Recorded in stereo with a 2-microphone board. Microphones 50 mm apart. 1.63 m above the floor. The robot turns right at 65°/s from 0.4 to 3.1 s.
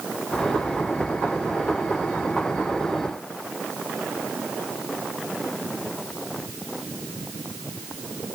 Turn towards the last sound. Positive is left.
No sound to turn to.